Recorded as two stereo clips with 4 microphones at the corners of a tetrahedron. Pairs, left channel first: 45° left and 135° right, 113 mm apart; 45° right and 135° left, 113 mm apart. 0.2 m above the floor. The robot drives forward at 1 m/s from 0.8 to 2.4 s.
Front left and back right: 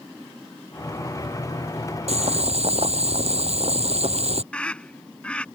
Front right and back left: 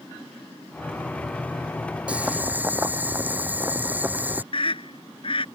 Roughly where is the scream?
Ahead right.